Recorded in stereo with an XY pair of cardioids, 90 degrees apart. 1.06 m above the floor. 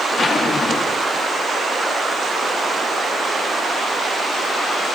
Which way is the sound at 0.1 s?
40° left.